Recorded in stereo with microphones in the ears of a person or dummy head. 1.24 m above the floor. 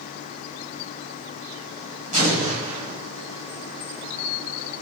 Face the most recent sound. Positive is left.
turn(degrees=-35)  # may be behind; listen again after turning